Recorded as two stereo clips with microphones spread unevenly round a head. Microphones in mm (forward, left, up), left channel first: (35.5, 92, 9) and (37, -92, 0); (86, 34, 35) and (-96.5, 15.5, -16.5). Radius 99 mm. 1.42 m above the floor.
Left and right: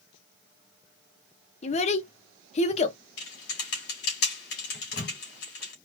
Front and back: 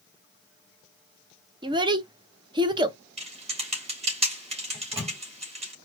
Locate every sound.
1.6 s a child speaking: 110° left, 0.6 m
3.2 s typing on a keyboard: 130° left, 2.5 m
4.7 s a microwave: 120° left, 2 m